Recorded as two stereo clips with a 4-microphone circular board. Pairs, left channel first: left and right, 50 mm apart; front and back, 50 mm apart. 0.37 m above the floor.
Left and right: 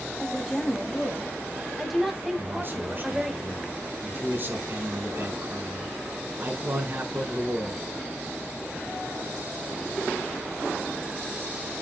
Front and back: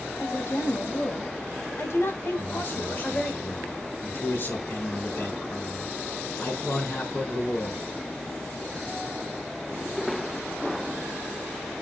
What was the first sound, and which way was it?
A woman speaking, 10° left.